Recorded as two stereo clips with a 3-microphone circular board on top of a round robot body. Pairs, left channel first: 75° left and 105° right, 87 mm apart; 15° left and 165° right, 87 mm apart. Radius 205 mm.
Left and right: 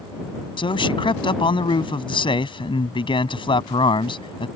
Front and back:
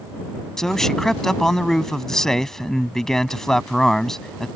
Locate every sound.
0.6 s a man speaking: 100° left